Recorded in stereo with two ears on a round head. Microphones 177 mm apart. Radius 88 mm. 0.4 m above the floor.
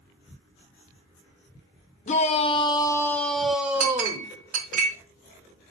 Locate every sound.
2.1 s a shout: 35° left (ahead or behind), 0.9 m; by 4.3 s 15° right (ahead or behind), 1.1 m
3.8 s a clink: 45° right (ahead or behind), 1.8 m